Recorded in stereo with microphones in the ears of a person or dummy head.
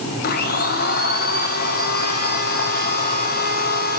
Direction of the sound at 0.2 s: 50° left (ahead or behind).